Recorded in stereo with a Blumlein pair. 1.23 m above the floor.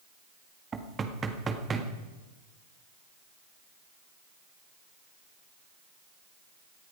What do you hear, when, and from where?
0.7 s knocking: 20° right, 1.7 m